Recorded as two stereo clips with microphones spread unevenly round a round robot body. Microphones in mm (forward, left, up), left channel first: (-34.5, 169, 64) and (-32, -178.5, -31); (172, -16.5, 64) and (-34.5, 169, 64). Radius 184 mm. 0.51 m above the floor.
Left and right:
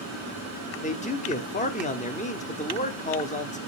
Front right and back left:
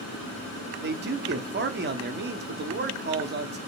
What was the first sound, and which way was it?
A man speaking, 170° left.